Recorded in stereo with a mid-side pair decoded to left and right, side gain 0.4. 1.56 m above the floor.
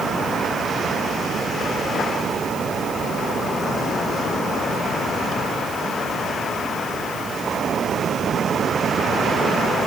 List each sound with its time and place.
Only background noise.